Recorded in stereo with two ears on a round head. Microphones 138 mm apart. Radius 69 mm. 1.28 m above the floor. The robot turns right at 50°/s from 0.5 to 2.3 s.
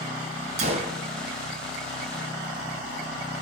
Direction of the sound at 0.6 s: 45° right (ahead or behind).